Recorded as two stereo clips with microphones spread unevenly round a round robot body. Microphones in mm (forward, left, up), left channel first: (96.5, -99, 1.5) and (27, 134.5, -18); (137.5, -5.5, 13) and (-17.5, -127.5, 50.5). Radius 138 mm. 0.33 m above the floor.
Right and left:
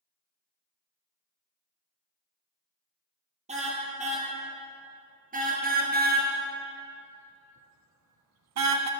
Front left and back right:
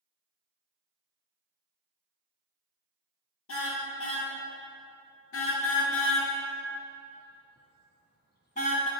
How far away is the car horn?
About 3.5 m.